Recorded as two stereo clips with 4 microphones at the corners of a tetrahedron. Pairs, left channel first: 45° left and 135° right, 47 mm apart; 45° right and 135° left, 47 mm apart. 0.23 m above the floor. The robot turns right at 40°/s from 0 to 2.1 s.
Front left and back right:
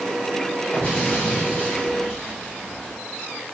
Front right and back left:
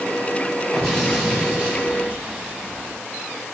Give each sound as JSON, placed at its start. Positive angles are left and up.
{"t": 0.7, "sound": "an explosion", "azimuth_deg": 45, "distance_m": 1.0}